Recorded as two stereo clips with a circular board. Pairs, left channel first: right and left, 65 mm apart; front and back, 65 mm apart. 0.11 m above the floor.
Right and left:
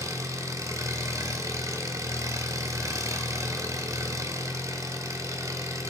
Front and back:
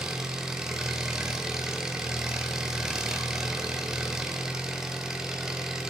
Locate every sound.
0.0 s an engine running: 100° left, 0.9 m